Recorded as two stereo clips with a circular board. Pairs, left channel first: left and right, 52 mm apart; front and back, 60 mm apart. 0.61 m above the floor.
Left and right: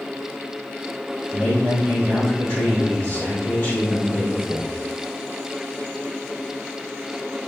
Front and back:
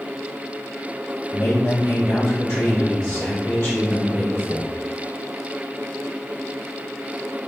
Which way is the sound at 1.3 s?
40° left.